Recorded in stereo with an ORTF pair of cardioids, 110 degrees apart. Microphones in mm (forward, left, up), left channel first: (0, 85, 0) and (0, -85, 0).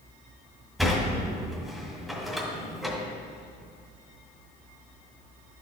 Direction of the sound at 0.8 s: Straight ahead.